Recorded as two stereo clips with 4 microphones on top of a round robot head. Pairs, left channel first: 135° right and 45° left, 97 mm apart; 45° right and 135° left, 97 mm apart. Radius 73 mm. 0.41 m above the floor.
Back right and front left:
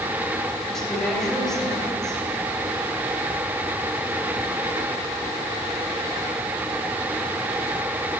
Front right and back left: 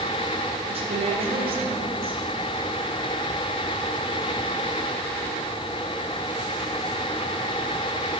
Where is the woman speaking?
140° left, 3 m.